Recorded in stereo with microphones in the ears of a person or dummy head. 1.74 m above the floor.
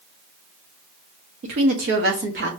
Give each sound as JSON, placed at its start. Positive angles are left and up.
{"t": 1.4, "sound": "a woman speaking", "side_deg": -35, "distance_m": 0.8}